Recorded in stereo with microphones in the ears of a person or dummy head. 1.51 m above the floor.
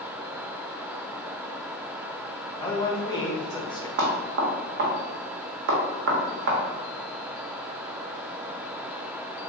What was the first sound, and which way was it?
A man speaking, 25° left (ahead or behind).